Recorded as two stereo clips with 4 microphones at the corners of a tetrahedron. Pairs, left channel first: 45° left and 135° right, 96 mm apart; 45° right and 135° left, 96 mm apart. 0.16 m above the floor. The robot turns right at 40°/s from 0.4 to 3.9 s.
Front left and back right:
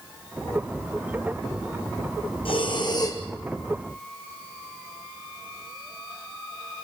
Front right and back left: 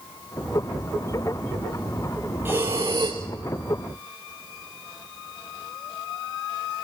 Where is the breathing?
70° left, 2 m; by 3.2 s 100° left, 2 m.